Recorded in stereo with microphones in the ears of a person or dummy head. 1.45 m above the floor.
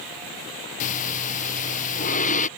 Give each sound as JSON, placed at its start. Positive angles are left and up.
{"t": 0.8, "sound": "breathing", "side_deg": 40}